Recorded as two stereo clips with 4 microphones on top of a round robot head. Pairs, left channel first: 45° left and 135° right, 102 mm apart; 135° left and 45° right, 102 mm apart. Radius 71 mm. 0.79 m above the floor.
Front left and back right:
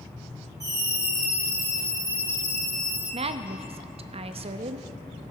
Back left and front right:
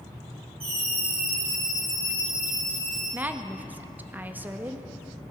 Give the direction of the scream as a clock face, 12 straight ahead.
3 o'clock.